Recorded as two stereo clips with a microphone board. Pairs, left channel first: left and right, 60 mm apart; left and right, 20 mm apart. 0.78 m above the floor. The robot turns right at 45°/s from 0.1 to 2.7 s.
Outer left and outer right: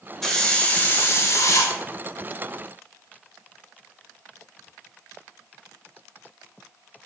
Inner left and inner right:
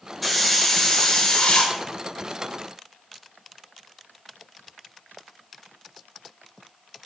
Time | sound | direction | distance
0.2 | a hiss | 5° left | 0.5 m